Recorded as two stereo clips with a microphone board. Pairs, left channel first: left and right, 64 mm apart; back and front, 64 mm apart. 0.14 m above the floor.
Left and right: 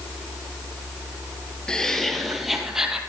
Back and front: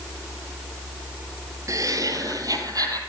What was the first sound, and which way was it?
Laughter, 15° left.